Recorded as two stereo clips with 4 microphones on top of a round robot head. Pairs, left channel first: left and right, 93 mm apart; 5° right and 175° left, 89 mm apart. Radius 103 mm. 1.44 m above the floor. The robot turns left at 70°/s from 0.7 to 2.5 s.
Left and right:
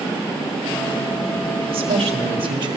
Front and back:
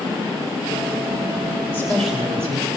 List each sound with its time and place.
1.7 s a woman speaking: 65° right, 4 m; by 2.8 s 125° right, 4 m